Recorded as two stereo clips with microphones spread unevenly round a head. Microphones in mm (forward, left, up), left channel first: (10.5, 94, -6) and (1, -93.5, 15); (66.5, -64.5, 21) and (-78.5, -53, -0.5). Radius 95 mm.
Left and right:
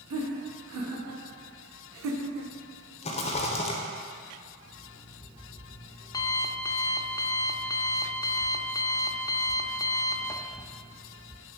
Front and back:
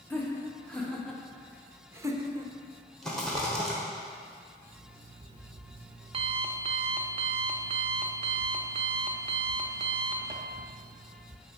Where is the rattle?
90° left, 0.8 m.